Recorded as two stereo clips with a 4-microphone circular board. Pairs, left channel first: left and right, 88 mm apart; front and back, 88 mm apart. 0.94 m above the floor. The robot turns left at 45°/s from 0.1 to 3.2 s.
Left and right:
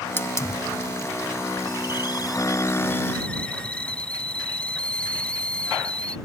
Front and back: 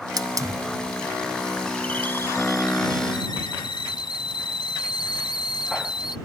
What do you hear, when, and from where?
0.2 s a hiss: 150° left; by 6.2 s 15° left